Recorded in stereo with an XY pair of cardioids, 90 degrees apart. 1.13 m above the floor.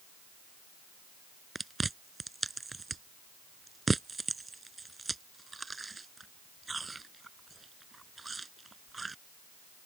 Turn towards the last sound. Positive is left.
turn(degrees=-25)